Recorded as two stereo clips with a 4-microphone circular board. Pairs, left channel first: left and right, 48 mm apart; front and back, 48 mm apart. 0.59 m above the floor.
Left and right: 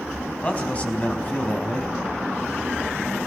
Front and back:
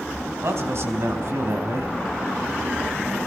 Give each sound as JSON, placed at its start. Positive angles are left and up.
{"t": 0.4, "sound": "a man speaking", "azimuth_deg": 155, "distance_m": 4.5}